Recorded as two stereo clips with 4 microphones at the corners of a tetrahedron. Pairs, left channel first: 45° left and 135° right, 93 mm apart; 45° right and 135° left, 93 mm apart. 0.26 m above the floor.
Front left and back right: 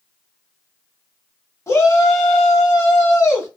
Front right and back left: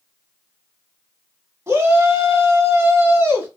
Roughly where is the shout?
Left.